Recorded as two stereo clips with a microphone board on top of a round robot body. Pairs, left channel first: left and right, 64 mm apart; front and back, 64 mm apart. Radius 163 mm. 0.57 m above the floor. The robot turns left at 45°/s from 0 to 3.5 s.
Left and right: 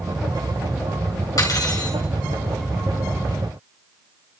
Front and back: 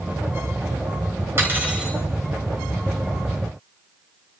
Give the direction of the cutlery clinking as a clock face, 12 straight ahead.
8 o'clock.